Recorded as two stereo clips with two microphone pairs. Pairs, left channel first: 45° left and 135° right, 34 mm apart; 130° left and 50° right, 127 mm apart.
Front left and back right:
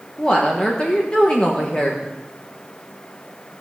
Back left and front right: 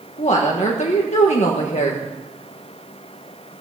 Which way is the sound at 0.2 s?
105° left.